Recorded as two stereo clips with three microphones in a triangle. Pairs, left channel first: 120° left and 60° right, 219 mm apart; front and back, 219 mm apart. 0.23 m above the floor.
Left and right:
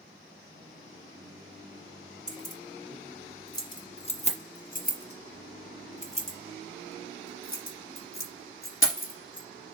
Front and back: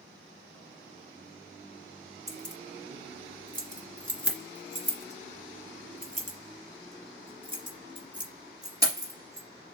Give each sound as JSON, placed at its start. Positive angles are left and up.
{"t": 2.3, "sound": "keys jangling", "azimuth_deg": -145, "distance_m": 2.0}